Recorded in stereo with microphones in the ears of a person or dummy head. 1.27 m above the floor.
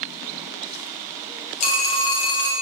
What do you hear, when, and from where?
1.6 s a phone ringing: 40° left (ahead or behind), 0.8 m